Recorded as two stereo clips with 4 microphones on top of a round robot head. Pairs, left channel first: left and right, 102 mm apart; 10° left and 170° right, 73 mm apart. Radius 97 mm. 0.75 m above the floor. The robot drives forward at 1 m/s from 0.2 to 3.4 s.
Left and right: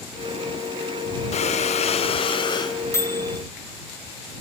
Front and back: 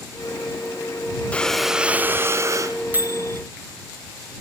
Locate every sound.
1.3 s breathing: 80° left, 1.0 m; by 2.8 s 145° left, 1.6 m
2.9 s a microwave: 140° left, 1.0 m; by 3.4 s 155° left, 1.3 m